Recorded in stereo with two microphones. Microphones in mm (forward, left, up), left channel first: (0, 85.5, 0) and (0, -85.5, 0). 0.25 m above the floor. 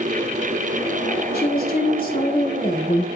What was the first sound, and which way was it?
A woman speaking, 65° left (ahead or behind).